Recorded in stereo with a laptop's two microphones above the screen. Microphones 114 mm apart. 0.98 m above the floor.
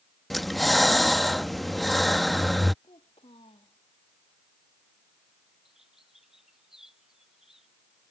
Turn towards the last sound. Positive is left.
turn(degrees=-5)  # may be behind; listen again after turning